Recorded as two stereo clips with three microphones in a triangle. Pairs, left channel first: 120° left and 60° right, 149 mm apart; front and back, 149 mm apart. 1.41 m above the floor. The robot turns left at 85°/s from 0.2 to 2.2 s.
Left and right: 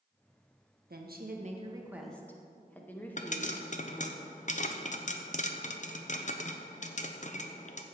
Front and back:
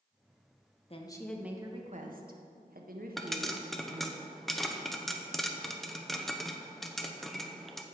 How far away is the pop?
About 0.8 m.